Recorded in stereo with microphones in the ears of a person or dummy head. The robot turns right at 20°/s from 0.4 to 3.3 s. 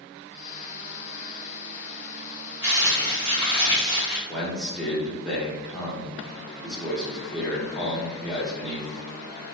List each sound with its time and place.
2.6 s crumpling: 20° right (ahead or behind), 1.0 m; by 4.2 s 30° right (ahead or behind), 1.0 m
4.3 s a man speaking: centre (ahead or behind), 0.7 m